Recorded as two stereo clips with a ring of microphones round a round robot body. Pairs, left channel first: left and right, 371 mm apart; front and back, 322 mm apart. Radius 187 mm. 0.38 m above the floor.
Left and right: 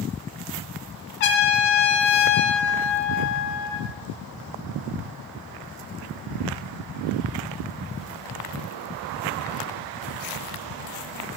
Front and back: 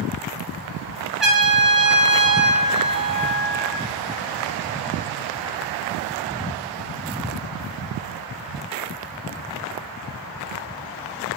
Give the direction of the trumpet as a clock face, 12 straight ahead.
9 o'clock.